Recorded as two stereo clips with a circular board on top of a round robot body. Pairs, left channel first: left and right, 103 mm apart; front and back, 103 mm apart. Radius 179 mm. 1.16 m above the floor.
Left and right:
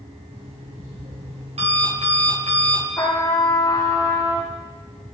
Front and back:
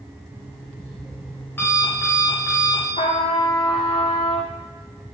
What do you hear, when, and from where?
0.3 s an alarm clock: 70° right, 4 m
3.0 s a trumpet: 30° left, 0.8 m